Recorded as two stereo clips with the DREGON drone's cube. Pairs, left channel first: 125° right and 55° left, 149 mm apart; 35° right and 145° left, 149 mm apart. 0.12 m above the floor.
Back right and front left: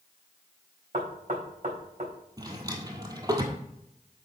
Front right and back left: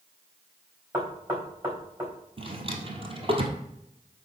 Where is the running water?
I don't hear running water.